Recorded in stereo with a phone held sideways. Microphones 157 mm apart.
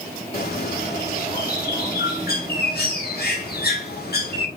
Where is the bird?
80° left, 1.3 m.